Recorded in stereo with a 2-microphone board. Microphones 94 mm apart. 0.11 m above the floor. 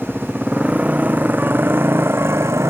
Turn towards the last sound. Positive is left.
turn(degrees=-30)  # may be behind; listen again after turning